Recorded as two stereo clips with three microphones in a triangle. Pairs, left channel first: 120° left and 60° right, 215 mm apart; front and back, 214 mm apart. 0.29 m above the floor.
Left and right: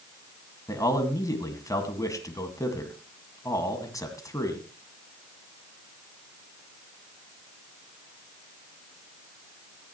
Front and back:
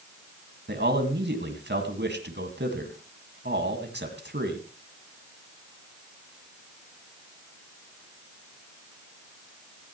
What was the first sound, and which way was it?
A man speaking, 170° right.